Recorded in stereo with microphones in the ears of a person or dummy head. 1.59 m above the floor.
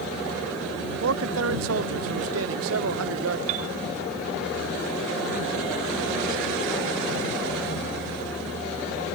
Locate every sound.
1.0 s a man speaking: 75° right (ahead or behind)
3.5 s a piano: 45° right (ahead or behind)